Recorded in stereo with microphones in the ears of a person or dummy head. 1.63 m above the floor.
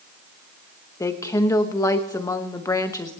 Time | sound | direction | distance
1.0 | a woman speaking | 20° left (ahead or behind) | 0.9 m